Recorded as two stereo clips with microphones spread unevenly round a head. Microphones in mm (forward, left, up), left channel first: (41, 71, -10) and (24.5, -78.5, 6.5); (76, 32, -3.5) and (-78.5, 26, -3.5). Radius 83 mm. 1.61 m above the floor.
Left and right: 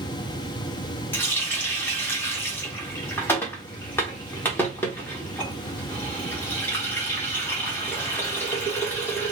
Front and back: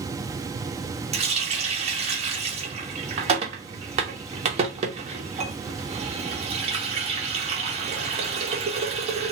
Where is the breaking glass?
No breaking glass in this recording.